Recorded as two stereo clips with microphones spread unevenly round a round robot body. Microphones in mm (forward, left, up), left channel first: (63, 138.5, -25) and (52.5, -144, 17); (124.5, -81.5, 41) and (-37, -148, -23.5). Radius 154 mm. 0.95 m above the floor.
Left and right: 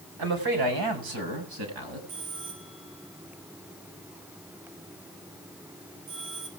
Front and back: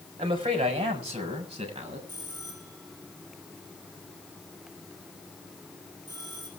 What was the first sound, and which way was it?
A man speaking, 100° right.